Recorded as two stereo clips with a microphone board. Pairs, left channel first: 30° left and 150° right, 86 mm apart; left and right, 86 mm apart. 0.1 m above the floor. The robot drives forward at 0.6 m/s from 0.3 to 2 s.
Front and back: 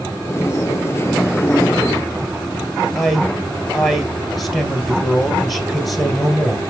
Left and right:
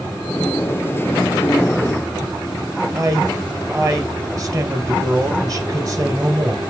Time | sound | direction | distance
3.0 | a man speaking | 65° right | 1.7 m